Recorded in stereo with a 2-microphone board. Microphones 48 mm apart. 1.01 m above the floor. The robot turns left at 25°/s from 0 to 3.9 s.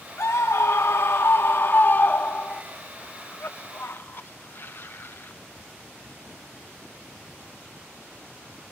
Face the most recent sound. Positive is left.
turn(degrees=45)  # may be behind; listen again after turning